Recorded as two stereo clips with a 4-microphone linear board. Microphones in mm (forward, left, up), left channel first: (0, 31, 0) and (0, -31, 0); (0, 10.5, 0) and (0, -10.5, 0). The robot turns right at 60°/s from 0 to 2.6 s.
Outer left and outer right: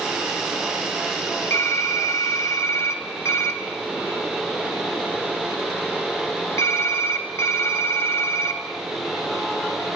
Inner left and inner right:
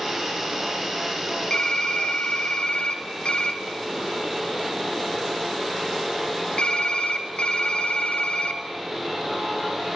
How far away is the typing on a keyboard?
About 0.8 m.